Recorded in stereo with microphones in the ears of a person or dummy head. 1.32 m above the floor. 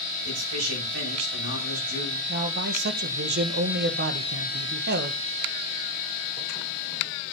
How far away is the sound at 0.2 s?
About 8.5 m.